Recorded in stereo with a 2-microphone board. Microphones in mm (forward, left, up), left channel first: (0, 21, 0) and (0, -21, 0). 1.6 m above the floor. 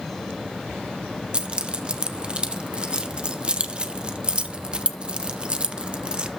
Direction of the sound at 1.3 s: 20° right (ahead or behind).